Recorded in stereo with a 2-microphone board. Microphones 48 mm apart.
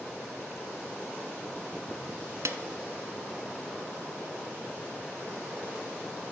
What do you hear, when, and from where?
2.5 s a snare drum: 70° right (ahead or behind), 0.6 m